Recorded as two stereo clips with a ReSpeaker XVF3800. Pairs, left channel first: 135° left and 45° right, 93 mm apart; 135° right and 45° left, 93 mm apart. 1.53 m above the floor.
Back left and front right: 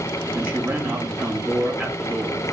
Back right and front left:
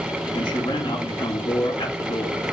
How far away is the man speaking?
About 2 m.